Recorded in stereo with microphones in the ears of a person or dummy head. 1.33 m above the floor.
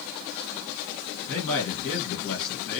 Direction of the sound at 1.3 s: 25° left (ahead or behind).